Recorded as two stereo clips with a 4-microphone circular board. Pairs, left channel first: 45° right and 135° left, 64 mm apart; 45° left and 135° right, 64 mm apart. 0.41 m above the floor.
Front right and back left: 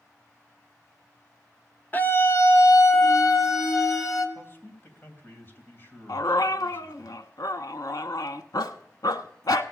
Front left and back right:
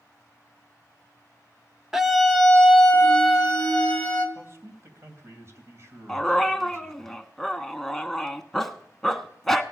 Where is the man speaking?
95° right, 3 m.